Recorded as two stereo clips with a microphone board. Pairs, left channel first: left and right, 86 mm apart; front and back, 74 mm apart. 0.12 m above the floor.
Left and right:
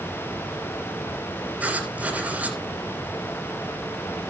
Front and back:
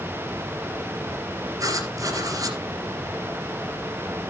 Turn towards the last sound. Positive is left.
turn(degrees=-160)